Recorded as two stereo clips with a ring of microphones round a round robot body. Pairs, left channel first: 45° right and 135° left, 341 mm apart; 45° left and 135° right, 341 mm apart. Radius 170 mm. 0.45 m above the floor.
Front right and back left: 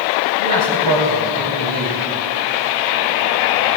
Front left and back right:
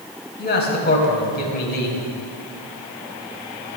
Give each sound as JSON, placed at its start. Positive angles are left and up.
{"t": 0.4, "sound": "a man speaking", "azimuth_deg": 105, "distance_m": 3.0}